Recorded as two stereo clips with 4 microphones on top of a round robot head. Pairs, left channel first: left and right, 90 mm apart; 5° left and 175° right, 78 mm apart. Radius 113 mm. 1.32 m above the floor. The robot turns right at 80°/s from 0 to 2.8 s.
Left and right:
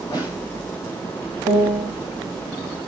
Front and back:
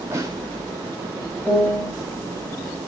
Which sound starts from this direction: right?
A piano, at 1.4 s.